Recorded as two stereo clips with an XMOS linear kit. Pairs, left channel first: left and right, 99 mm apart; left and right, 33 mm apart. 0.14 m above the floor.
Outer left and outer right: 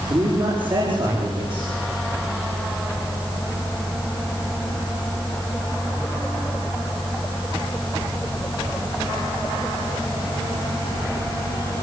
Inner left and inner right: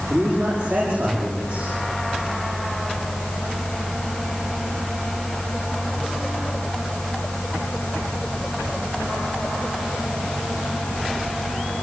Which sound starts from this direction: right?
A man speaking, at 0.1 s.